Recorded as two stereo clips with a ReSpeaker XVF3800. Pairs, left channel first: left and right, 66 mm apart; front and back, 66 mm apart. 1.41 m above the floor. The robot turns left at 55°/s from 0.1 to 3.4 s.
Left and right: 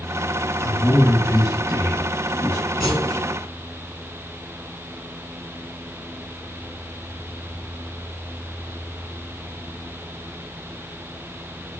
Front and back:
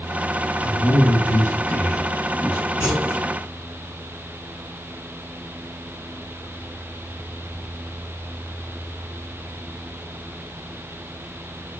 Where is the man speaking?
20° left, 0.9 m; by 2.7 s 95° right, 0.9 m.